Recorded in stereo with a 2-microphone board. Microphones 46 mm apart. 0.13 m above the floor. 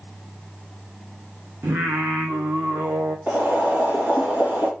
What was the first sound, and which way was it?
Singing, 75° right (ahead or behind).